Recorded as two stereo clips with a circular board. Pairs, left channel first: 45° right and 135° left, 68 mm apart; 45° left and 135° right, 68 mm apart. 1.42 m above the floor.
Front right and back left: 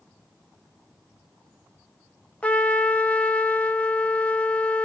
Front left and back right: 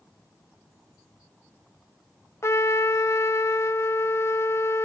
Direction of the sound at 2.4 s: 20° left.